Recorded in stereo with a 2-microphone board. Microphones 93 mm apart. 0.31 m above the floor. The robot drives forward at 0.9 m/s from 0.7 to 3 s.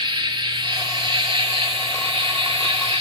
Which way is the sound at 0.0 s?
60° right (ahead or behind).